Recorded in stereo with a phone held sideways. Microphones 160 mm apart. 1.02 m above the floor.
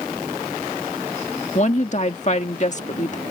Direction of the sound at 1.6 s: 45° left (ahead or behind).